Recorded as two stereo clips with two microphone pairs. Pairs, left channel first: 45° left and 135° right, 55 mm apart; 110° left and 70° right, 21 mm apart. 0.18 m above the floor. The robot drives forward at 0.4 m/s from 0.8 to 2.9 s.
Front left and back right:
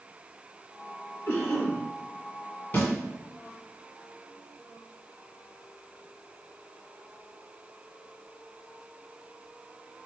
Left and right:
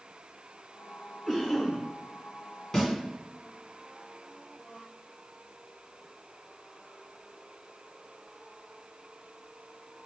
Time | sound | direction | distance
1.3 | a cough | 25° left | 1.9 m
2.7 | a snare drum | 60° left | 1.5 m